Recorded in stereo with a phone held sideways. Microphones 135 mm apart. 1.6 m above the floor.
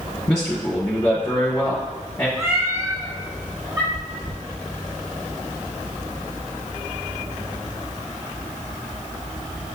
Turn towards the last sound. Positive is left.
turn(degrees=-40)  # may be behind; listen again after turning